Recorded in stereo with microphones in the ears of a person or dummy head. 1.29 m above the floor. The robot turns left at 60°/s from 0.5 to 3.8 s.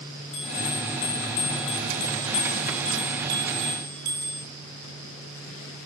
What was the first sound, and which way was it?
A bell, 140° left.